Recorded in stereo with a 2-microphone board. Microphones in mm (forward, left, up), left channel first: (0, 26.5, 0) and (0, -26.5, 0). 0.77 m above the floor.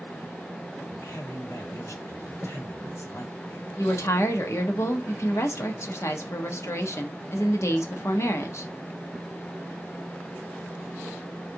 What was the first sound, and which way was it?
A man speaking, 65° left (ahead or behind).